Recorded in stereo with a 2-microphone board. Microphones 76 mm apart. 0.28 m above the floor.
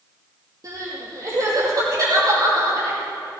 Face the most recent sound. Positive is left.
turn(degrees=-50)  # may be behind; listen again after turning